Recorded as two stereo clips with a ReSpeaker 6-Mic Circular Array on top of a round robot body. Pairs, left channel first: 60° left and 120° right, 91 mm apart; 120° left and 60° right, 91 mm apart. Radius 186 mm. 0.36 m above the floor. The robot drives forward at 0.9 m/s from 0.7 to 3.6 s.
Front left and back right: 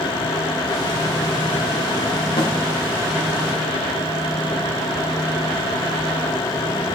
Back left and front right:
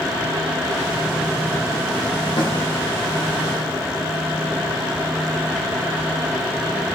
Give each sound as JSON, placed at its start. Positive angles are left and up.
{"t": 2.4, "sound": "a snare drum", "azimuth_deg": 85, "distance_m": 5.0}